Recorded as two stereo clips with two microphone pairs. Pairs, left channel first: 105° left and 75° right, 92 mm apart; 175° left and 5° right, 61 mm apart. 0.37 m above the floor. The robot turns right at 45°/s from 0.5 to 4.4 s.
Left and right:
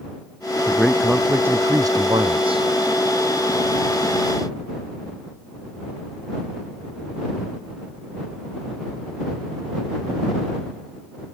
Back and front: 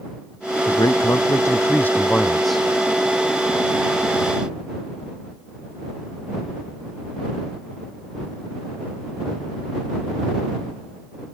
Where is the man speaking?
Straight behind; by 2.6 s 90° right.